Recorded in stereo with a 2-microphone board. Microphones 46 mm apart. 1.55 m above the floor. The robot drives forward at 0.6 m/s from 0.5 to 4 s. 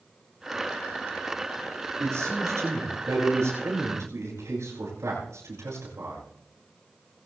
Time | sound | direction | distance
2.0 | a man speaking | 85° right | 8 m